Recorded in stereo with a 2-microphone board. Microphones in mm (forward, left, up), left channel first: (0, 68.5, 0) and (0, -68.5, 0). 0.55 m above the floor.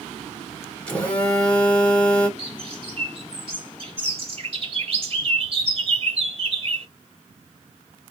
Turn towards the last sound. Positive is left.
turn(degrees=-45)  # may be behind; listen again after turning